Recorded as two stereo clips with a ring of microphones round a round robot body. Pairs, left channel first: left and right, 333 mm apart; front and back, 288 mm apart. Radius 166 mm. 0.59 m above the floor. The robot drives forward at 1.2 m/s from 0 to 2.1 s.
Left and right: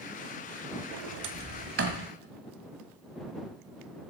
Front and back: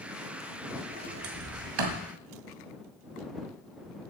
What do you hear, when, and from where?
0.9 s a sliding door: 100° right, 0.8 m; by 2.1 s 155° right, 1.7 m